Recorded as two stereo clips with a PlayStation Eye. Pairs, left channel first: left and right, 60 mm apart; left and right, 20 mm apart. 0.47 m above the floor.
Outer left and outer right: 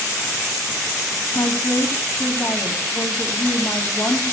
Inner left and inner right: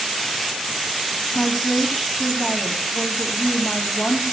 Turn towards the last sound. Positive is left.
turn(degrees=50)  # may be behind; listen again after turning